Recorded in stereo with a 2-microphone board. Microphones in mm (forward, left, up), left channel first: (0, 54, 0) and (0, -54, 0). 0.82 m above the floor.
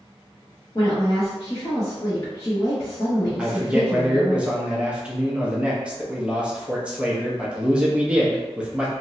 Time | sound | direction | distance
0.8 | a woman speaking | 35° left (ahead or behind) | 0.9 m
3.4 | a man speaking | 10° right (ahead or behind) | 0.7 m